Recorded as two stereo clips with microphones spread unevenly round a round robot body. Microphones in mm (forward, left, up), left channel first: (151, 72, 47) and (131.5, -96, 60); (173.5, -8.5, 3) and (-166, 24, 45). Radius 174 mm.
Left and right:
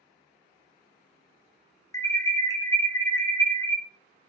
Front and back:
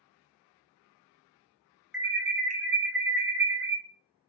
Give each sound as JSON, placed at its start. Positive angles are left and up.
{"t": 1.9, "sound": "an alarm", "azimuth_deg": 75, "distance_m": 0.5}